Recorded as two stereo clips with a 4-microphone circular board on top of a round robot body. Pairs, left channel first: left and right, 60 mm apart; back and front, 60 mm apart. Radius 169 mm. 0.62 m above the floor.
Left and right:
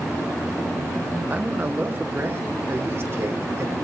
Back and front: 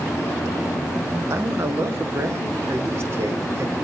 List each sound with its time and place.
1.3 s a man speaking: 35° right, 1.9 m; by 3.8 s 45° right, 4 m